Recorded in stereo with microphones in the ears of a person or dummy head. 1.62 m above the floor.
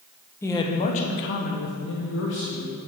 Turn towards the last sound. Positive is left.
turn(degrees=60)  # may be behind; listen again after turning